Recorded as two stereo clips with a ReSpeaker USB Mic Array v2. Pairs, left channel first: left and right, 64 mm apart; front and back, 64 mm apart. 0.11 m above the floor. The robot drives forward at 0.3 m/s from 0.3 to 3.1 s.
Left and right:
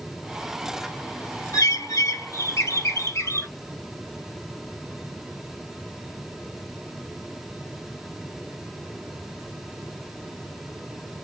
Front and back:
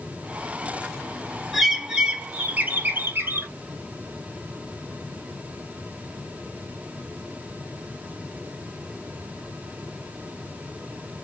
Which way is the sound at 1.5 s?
90° left.